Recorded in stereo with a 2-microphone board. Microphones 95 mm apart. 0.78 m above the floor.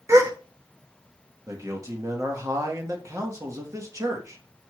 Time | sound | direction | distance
0.1 | a gasp | 30° right (ahead or behind) | 0.7 m
1.5 | a man speaking | 35° right (ahead or behind) | 1.0 m